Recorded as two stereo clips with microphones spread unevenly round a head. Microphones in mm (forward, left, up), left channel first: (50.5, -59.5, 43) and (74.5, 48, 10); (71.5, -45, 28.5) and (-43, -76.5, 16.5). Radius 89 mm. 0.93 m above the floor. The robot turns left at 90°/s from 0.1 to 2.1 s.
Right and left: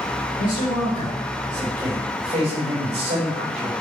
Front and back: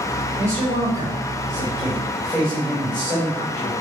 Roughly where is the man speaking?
Right.